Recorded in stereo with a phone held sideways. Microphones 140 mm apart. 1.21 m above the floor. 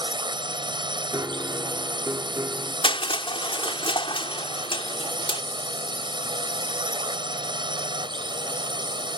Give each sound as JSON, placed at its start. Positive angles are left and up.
{"t": 0.0, "sound": "a drone", "side_deg": -35}
{"t": 1.1, "sound": "a piano", "side_deg": -25}
{"t": 2.8, "sound": "crushing", "side_deg": 40}